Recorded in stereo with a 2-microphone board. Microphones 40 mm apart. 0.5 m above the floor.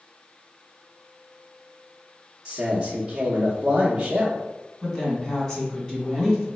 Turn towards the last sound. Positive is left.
turn(degrees=15)  # may be behind; listen again after turning